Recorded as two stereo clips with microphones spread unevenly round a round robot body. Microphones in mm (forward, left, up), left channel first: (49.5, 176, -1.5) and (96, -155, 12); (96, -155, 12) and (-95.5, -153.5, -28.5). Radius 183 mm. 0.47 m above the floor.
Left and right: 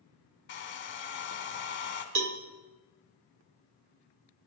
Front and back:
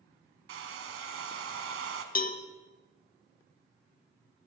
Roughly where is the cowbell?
Ahead right.